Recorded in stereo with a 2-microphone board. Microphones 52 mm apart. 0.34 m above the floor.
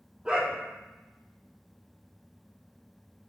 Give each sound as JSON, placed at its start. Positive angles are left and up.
{"t": 0.2, "sound": "a dog barking", "side_deg": -20, "distance_m": 3.0}